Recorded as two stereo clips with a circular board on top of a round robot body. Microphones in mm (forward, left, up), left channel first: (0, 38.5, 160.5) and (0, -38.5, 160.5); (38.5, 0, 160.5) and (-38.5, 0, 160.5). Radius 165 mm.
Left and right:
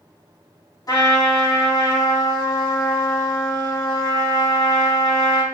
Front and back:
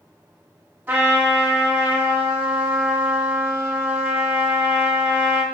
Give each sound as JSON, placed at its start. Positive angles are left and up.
{"t": 0.9, "sound": "a trumpet", "azimuth_deg": 110, "distance_m": 1.4}